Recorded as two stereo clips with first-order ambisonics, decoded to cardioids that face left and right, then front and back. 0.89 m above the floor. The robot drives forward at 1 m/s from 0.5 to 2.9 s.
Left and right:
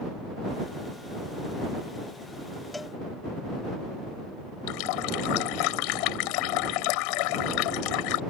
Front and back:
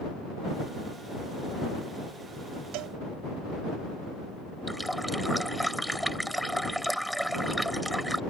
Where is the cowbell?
175° left.